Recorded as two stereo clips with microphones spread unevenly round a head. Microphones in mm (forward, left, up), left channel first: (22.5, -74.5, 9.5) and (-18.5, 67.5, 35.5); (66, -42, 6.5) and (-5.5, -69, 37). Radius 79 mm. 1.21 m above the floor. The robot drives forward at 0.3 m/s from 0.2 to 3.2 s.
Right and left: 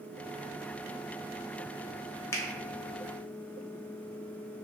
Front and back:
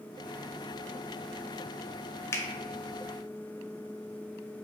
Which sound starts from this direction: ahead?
A finger snap, at 2.3 s.